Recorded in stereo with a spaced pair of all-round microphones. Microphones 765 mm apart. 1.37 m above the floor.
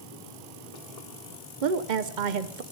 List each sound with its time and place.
1.6 s a woman speaking: 75° right (ahead or behind), 0.9 m